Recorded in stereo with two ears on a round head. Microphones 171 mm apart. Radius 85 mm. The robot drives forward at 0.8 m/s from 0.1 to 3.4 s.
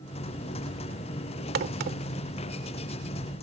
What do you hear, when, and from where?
1.6 s a crack: 60° right (ahead or behind); by 2.0 s 50° right (ahead or behind)